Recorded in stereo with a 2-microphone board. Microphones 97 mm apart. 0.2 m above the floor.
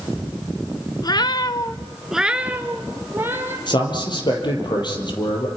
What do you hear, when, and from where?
1.0 s a cat meowing: 45° left (ahead or behind), 1.0 m; by 3.6 s 25° right (ahead or behind), 3 m
3.7 s a man speaking: 50° left (ahead or behind), 4.5 m